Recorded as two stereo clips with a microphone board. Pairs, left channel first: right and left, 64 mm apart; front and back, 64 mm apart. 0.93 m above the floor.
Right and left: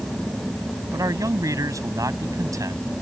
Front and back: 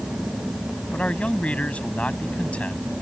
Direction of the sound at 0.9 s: 70° left.